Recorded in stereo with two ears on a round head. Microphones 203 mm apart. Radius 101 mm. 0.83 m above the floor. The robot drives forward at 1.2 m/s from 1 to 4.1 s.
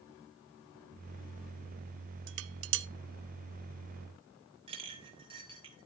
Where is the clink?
25° right (ahead or behind), 2 m.